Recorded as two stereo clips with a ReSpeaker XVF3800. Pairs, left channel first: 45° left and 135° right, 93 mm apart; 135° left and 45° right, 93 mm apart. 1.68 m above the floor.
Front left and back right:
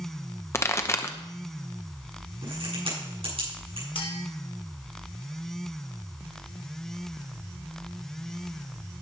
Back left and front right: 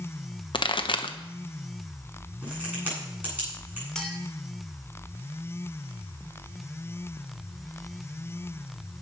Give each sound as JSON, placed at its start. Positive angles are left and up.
{"t": 0.5, "sound": "a pop", "azimuth_deg": 105, "distance_m": 1.0}
{"t": 2.4, "sound": "a crack", "azimuth_deg": -120, "distance_m": 8.5}
{"t": 4.0, "sound": "a clink", "azimuth_deg": 50, "distance_m": 2.5}